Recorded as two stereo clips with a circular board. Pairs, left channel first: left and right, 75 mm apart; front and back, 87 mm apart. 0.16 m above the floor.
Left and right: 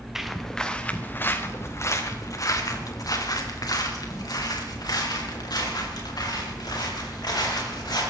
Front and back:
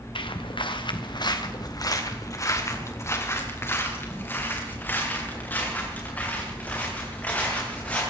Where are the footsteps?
5° right, 1.7 m; by 8.0 s 75° left, 9 m.